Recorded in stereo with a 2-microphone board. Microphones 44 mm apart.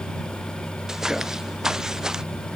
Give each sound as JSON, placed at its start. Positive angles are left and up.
{"t": 0.9, "sound": "footsteps", "side_deg": -15}